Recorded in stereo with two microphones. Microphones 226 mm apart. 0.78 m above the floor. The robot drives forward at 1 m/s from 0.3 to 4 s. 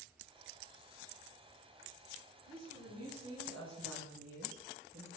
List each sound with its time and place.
2.5 s a woman speaking: 75° right (ahead or behind), 3 m